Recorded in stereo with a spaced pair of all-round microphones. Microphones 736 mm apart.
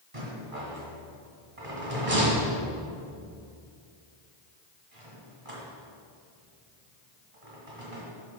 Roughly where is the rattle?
Right.